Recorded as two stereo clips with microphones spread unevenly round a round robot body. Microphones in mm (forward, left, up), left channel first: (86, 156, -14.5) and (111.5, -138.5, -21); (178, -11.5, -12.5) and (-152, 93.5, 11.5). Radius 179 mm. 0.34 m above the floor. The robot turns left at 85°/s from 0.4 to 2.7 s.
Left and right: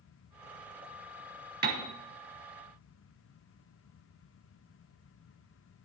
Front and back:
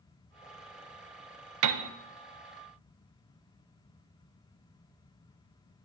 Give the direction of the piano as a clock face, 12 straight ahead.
5 o'clock.